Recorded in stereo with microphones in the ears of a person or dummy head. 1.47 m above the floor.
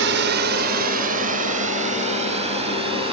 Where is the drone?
65° right (ahead or behind); by 3.1 s 35° right (ahead or behind).